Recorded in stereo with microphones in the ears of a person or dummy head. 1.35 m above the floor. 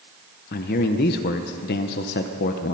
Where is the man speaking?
45° left (ahead or behind), 0.8 m.